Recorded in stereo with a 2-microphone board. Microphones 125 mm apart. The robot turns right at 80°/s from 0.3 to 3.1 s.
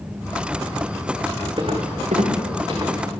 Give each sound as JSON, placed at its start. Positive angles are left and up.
{"t": 1.6, "sound": "footsteps", "side_deg": -45, "distance_m": 3.0}